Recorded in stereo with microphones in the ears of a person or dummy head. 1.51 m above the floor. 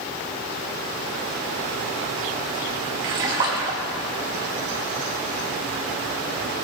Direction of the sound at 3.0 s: 25° right (ahead or behind).